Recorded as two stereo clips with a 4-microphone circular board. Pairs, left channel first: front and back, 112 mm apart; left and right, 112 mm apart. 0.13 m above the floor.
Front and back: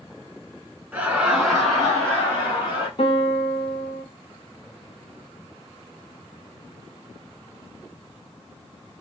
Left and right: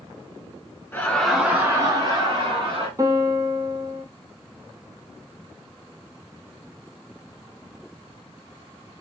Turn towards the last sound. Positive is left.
turn(degrees=-30)